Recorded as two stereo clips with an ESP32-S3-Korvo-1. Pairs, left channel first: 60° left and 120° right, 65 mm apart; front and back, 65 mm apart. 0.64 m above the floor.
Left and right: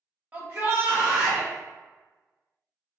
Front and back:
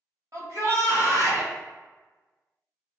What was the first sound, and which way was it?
A shout, straight behind.